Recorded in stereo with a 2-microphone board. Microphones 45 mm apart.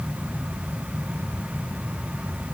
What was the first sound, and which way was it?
Only background noise.